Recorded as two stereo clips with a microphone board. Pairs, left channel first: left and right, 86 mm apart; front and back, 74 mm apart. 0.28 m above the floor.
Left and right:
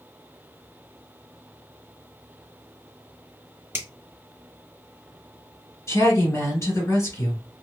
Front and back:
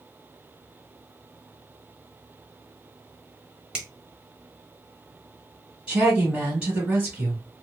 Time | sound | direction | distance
3.7 | a finger snap | 110° right | 1.1 m
5.9 | a woman speaking | 110° left | 1.8 m